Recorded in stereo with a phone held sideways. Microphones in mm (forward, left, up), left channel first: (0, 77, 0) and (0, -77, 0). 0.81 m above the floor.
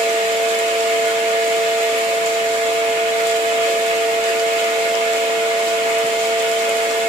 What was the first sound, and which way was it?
A fan, 40° right (ahead or behind).